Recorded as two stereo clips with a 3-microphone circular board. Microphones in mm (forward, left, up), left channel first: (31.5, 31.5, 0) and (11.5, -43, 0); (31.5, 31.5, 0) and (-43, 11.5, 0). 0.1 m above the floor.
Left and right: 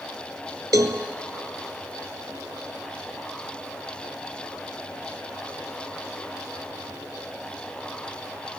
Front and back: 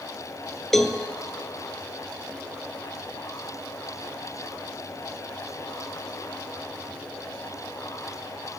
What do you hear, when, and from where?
0.7 s a cowbell: 70° right, 0.5 m